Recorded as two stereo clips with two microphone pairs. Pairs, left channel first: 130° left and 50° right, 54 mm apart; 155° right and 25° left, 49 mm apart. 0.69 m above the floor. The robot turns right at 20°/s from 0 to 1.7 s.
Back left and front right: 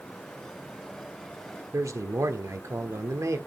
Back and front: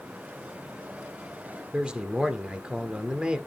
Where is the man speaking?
40° right, 1.6 m.